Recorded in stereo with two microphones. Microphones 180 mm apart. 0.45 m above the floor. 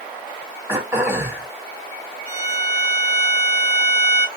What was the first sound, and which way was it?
Throat clearing, 15° right (ahead or behind).